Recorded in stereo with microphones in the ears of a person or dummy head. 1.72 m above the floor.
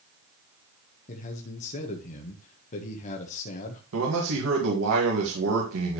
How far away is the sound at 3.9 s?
About 2.5 m.